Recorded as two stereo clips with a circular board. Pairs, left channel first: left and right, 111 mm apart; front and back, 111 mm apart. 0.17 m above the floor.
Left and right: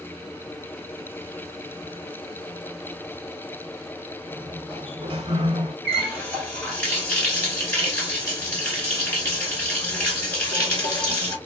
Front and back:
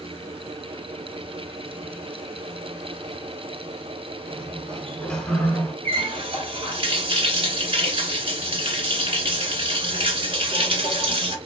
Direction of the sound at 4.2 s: 80° right.